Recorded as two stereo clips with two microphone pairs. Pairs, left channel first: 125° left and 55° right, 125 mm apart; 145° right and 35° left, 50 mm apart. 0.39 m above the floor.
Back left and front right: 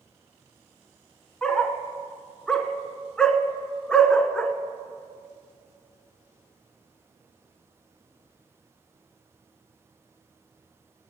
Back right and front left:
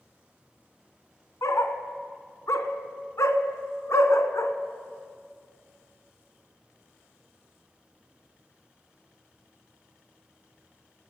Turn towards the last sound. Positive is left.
turn(degrees=-150)